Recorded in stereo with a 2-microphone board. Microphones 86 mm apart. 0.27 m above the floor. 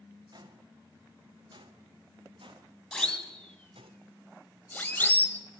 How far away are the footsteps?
About 3 m.